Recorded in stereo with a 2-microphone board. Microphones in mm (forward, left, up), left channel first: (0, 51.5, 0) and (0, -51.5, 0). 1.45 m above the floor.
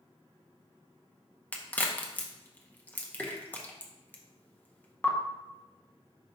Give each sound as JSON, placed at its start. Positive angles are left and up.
{"t": 1.5, "sound": "a crack", "side_deg": 15, "distance_m": 0.7}